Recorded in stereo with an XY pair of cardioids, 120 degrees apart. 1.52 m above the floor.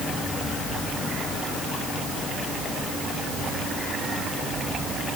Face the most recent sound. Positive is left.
No sound to turn to.